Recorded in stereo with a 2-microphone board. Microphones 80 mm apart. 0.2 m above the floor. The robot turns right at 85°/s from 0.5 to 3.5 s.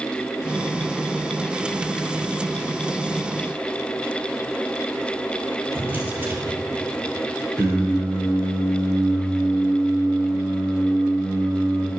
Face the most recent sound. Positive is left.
turn(degrees=15)  # may be behind; listen again after turning